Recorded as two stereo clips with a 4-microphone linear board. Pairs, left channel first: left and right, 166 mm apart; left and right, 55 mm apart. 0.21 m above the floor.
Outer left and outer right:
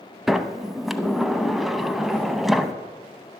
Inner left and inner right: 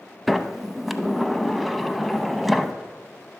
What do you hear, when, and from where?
0.3 s a sliding door: centre (ahead or behind), 0.6 m